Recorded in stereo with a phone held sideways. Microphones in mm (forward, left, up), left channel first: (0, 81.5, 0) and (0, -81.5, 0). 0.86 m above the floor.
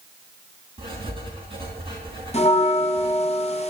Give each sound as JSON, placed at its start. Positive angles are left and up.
{"t": 0.8, "sound": "writing", "side_deg": -30, "distance_m": 4.0}
{"t": 2.3, "sound": "a bell", "side_deg": 40, "distance_m": 1.1}